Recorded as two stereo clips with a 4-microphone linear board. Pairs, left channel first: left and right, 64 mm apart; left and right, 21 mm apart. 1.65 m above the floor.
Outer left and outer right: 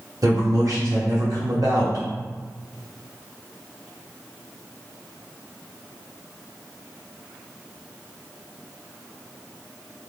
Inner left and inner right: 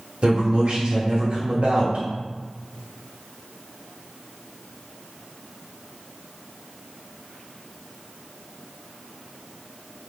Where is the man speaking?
65° right (ahead or behind), 0.9 m.